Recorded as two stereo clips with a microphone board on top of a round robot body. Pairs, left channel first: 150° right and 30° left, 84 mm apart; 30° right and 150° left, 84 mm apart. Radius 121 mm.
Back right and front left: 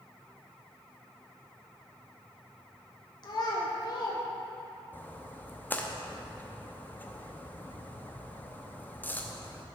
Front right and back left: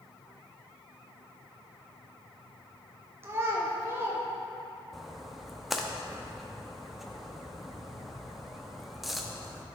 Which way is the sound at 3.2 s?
155° right.